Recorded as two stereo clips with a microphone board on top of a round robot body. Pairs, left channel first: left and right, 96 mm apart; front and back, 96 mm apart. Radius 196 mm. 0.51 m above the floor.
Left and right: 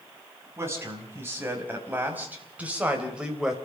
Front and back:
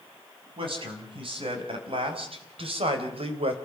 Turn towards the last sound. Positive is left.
turn(degrees=-175)